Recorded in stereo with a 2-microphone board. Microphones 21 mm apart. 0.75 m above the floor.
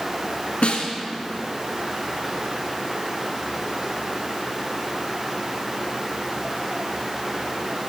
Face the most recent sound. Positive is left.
turn(degrees=80)